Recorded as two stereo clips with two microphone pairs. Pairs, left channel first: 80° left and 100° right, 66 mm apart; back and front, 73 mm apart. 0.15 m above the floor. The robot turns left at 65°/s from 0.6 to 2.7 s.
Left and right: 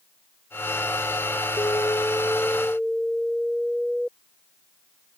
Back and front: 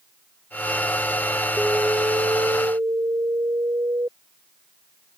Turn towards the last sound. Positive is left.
turn(degrees=-10)